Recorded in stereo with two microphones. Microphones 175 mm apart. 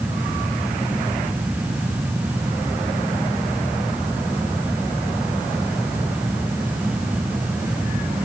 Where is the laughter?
I don't hear laughter.